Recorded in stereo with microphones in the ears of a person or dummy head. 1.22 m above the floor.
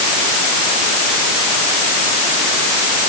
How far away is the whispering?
I don't hear whispering.